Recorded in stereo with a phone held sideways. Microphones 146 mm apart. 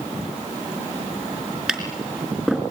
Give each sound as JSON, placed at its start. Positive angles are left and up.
{"t": 1.7, "sound": "tapping", "side_deg": 0, "distance_m": 4.0}